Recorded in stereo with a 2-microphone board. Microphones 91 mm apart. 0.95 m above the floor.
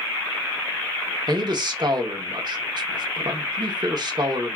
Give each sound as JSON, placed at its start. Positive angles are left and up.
{"t": 1.3, "sound": "a man speaking", "side_deg": -50, "distance_m": 1.0}